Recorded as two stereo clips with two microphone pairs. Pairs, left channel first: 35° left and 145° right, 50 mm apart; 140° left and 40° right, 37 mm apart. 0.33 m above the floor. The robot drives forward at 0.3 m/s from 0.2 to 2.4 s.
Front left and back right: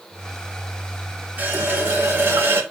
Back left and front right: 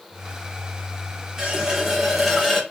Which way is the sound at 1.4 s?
100° right.